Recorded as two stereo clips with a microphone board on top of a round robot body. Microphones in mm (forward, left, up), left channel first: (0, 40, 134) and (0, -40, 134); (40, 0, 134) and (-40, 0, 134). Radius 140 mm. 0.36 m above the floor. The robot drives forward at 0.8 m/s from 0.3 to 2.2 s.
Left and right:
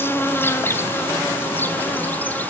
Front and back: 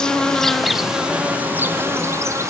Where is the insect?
70° left, 1.9 m; by 2.5 s 145° left, 2 m.